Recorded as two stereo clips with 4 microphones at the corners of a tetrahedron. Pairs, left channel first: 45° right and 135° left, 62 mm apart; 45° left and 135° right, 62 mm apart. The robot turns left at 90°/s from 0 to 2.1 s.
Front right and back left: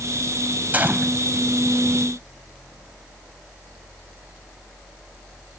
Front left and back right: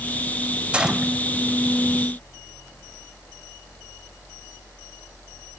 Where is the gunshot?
170° left, 0.9 m; by 1.1 s 135° left, 0.9 m.